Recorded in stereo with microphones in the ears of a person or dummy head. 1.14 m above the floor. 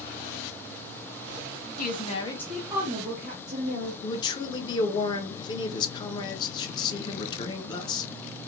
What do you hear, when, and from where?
1.8 s a woman speaking: 45° left (ahead or behind), 0.9 m; by 3.9 s 60° right (ahead or behind), 1.3 m
4.0 s a man speaking: 25° left (ahead or behind), 0.8 m